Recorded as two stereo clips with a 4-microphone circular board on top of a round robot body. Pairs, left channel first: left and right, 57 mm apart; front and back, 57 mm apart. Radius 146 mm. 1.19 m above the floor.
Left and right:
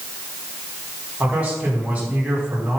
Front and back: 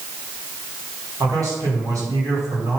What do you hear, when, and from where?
1.2 s a man speaking: 160° right, 4.5 m